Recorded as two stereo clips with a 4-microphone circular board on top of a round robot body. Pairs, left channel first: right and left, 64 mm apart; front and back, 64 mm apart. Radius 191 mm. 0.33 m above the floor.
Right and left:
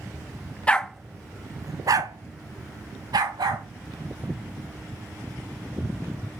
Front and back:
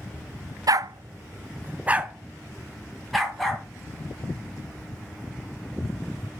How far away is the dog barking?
About 0.7 m.